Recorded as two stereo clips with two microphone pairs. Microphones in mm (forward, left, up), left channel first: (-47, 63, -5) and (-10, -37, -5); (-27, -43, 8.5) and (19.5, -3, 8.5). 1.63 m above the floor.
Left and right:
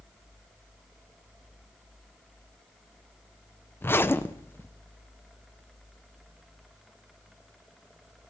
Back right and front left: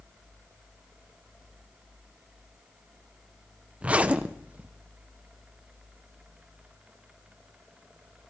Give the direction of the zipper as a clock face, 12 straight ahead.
9 o'clock.